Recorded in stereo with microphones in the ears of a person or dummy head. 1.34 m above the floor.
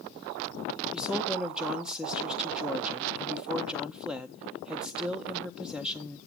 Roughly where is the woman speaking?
Centre.